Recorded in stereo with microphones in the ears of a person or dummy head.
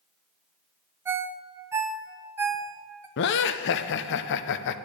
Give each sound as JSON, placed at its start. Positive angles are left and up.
{"t": 1.1, "sound": "a ringtone", "side_deg": -15, "distance_m": 0.7}
{"t": 3.2, "sound": "laughter", "side_deg": 55, "distance_m": 0.6}